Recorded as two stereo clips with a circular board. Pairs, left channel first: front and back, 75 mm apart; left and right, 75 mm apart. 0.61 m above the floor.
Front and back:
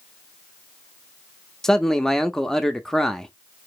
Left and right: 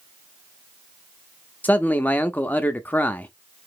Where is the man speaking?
70° left, 0.5 m.